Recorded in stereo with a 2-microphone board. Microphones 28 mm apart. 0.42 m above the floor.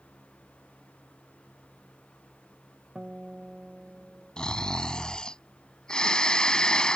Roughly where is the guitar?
Right.